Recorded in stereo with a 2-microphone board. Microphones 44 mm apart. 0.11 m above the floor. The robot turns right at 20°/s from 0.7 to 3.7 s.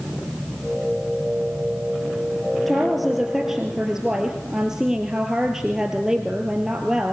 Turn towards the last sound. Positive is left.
turn(degrees=-10)  # may be behind; listen again after turning